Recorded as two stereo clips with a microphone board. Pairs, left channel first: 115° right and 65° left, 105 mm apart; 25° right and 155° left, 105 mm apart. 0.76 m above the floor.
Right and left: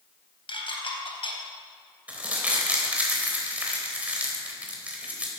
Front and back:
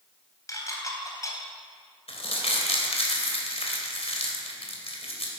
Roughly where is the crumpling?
Ahead.